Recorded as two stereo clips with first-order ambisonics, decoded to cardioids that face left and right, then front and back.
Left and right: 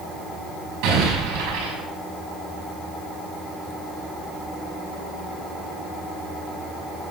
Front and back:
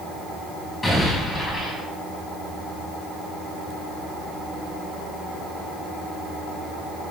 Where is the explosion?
85° right, 6 m.